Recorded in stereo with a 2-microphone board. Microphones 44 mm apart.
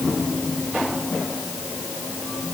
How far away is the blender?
No blender in this recording.